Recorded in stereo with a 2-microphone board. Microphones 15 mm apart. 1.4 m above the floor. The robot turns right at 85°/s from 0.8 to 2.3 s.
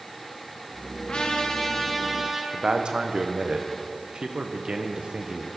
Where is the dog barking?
I don't hear a dog barking.